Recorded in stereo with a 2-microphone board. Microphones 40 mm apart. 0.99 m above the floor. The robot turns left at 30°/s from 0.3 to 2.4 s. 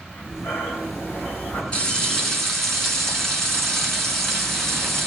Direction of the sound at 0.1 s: 85° left.